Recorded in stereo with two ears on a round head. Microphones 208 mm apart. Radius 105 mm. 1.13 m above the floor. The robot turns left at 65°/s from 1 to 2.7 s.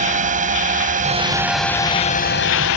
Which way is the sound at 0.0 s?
35° right (ahead or behind).